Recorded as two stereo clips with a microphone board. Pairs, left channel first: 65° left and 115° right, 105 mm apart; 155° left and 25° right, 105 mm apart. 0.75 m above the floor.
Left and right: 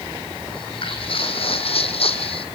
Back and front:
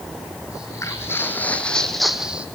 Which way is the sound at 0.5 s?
100° left.